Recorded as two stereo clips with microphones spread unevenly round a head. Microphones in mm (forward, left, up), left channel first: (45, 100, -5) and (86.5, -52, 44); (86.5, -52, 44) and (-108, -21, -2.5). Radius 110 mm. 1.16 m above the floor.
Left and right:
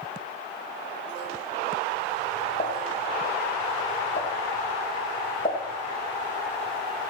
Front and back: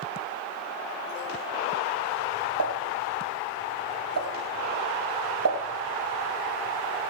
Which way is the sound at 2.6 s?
170° left.